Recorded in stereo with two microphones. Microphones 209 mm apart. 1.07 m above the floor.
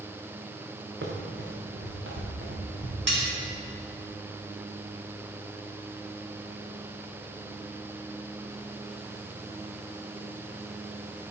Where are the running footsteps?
70° right (ahead or behind), 3.5 m.